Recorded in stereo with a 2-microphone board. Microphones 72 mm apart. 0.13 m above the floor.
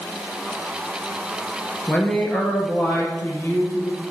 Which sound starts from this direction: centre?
A man speaking, at 1.9 s.